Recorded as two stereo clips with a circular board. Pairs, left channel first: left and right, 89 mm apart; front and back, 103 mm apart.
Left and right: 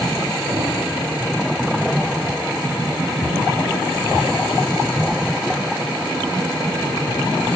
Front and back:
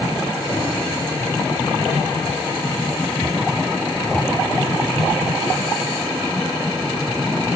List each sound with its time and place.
0.5 s a thud: 55° right, 8.5 m